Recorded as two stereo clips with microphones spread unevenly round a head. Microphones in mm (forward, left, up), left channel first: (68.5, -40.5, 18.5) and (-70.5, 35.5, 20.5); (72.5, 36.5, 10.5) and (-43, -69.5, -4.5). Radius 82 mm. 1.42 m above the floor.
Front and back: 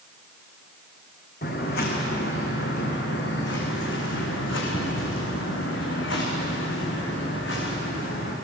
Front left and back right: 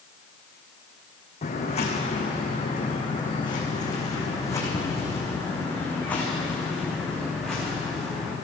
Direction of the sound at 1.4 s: Straight ahead.